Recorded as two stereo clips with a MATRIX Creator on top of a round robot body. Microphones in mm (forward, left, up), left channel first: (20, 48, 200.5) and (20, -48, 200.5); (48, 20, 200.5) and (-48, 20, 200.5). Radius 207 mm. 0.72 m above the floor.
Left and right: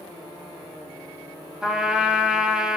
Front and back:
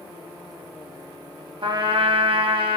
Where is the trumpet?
170° right, 1.3 m.